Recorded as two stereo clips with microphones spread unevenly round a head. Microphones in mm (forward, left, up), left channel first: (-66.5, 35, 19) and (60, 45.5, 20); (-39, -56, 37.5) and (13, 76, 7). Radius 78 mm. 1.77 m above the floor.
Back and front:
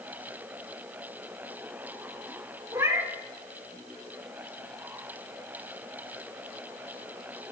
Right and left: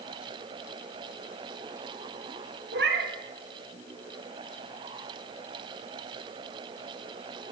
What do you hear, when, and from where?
2.7 s a cat meowing: 70° left, 2 m